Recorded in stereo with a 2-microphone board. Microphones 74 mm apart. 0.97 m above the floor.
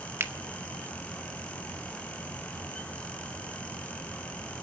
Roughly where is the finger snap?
Right.